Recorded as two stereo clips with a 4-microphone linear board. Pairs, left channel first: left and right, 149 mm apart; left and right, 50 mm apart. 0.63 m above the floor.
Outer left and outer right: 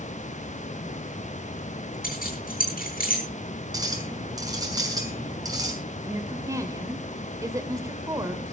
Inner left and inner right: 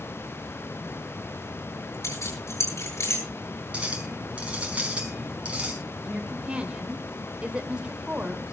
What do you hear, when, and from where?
2.0 s keys jangling: 75° left (ahead or behind), 8.5 m
3.7 s a clink: 25° right (ahead or behind), 4.5 m
6.0 s a woman speaking: 20° right (ahead or behind), 2.5 m